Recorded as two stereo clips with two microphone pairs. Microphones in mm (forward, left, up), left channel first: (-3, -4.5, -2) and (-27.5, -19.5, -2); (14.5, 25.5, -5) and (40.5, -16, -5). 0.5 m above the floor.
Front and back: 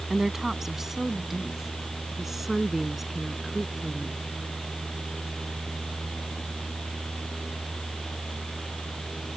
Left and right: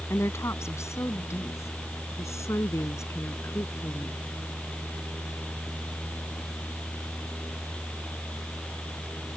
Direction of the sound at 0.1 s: 135° left.